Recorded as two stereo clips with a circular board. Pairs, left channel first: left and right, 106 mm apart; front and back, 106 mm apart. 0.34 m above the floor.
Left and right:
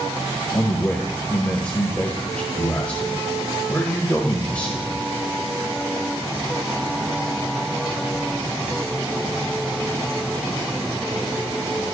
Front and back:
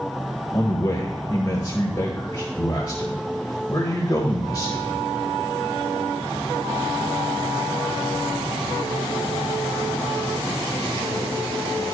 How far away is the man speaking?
About 1.1 m.